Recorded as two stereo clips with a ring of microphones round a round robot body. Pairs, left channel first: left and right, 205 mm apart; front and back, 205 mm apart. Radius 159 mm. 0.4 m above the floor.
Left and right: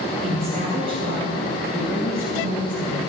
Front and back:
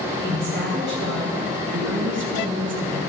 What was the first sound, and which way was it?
A woman speaking, 150° right.